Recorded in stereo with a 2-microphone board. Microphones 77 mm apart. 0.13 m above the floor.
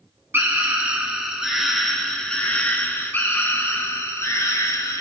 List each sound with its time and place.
0.3 s a scream: 30° right (ahead or behind), 1.7 m; by 5.0 s 40° left (ahead or behind), 3 m